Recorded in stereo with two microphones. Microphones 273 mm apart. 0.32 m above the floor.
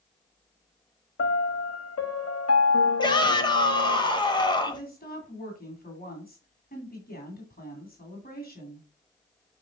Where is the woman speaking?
35° left (ahead or behind), 2.5 m.